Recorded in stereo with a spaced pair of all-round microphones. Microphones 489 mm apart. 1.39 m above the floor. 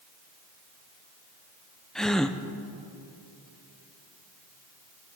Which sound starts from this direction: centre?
A gasp, at 1.9 s.